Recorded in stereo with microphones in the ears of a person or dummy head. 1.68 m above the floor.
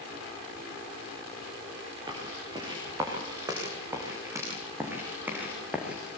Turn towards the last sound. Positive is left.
turn(degrees=0)  # may be behind; listen again after turning